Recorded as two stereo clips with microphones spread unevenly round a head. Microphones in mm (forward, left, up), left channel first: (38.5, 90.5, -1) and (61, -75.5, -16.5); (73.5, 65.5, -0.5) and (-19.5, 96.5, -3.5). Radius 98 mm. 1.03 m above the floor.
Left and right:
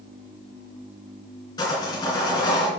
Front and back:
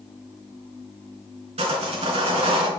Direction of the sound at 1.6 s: 165° left.